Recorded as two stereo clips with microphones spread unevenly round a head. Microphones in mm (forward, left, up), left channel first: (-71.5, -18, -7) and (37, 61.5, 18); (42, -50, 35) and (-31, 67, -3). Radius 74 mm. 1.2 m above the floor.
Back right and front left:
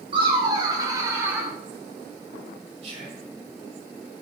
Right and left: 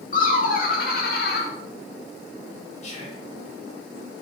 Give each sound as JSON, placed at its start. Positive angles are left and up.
{"t": 0.1, "sound": "laughter", "azimuth_deg": -25, "distance_m": 3.5}
{"t": 2.8, "sound": "whispering", "azimuth_deg": -15, "distance_m": 6.0}